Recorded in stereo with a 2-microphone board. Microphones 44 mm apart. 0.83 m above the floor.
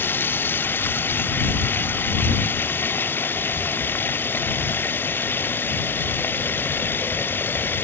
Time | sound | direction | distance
0.0 | running water | 50° left (ahead or behind) | ?